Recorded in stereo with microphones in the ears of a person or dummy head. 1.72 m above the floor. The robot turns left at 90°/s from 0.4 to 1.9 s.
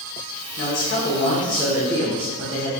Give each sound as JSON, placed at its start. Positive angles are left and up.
{"t": 0.6, "sound": "a man speaking", "azimuth_deg": 95, "distance_m": 1.0}